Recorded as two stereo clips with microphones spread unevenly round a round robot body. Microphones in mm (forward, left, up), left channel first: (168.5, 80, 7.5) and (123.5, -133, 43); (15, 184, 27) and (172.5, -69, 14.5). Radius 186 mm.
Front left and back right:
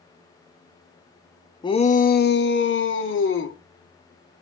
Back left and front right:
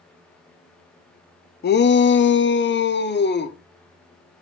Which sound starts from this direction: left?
A shout, at 1.6 s.